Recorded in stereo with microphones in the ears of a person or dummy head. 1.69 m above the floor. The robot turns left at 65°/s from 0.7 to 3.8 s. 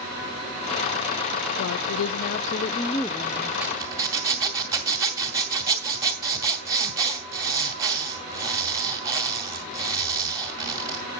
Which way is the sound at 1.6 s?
105° left.